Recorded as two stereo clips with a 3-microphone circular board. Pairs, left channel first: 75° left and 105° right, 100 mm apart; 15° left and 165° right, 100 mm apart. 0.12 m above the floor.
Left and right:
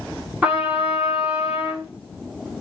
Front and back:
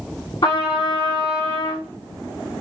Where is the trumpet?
30° right, 2 m.